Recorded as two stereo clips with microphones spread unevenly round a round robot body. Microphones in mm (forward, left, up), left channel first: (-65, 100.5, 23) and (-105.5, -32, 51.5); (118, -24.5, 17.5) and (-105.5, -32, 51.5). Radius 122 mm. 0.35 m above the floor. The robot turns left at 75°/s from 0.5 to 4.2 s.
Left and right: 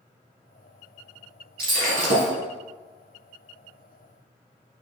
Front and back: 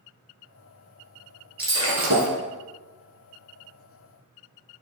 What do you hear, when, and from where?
1.6 s breaking glass: 95° right, 2.5 m; by 2.3 s 150° right, 2.5 m